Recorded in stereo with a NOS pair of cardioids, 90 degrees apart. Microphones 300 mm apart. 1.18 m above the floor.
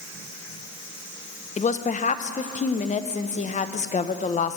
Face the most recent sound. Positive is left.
turn(degrees=25)